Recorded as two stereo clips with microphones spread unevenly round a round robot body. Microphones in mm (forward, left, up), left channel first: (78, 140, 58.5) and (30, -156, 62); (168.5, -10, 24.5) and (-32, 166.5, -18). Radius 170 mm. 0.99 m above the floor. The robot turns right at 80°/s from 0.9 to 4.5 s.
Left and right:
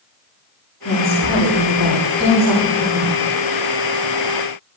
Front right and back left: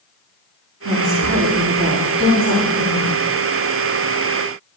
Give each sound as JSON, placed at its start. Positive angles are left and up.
{"t": 0.8, "sound": "a woman speaking", "azimuth_deg": 135, "distance_m": 8.5}